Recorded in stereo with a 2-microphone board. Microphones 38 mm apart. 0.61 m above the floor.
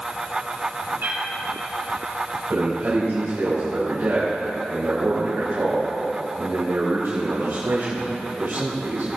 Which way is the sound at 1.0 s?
60° right (ahead or behind).